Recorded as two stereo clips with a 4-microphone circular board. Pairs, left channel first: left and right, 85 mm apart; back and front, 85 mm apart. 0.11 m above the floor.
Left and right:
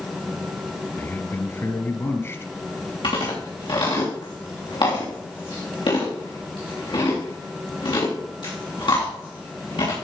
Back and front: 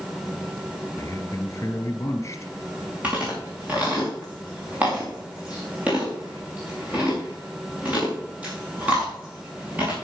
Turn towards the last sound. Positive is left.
turn(degrees=70)